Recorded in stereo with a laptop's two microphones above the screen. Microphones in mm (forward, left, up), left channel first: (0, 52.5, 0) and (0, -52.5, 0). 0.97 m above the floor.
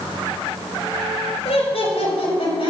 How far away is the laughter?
About 4.5 m.